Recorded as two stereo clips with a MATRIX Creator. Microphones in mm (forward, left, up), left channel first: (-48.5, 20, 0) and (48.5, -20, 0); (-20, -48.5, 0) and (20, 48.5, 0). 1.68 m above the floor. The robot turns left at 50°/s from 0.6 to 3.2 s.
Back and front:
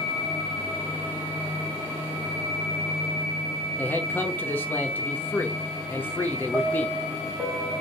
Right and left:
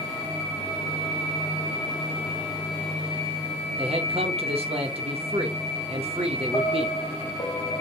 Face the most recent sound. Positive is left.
turn(degrees=-90)